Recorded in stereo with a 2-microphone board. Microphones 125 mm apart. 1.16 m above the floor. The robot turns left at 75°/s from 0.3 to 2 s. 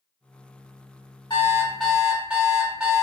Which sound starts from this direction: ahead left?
An alarm clock, at 1.3 s.